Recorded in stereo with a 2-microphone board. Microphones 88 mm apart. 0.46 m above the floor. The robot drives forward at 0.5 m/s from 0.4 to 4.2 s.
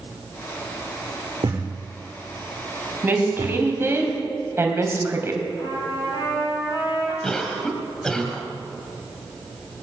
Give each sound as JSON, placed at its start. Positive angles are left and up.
{"t": 1.4, "sound": "a thud", "side_deg": -80, "distance_m": 6.0}
{"t": 3.0, "sound": "a woman speaking", "side_deg": -25, "distance_m": 3.0}
{"t": 5.6, "sound": "a trumpet", "side_deg": 65, "distance_m": 6.0}
{"t": 7.2, "sound": "a cough", "side_deg": 10, "distance_m": 2.0}